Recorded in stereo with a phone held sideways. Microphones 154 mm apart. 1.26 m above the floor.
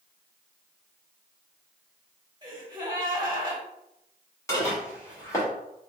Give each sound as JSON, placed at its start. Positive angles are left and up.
{"t": 2.4, "sound": "a gasp", "side_deg": -30, "distance_m": 1.1}
{"t": 4.5, "sound": "dishes clattering", "side_deg": 20, "distance_m": 1.7}